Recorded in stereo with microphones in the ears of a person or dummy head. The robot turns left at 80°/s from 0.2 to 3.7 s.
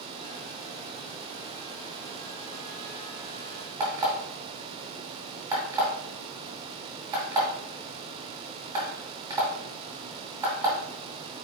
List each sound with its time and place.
3.8 s an alarm clock: 20° right (ahead or behind), 1.4 m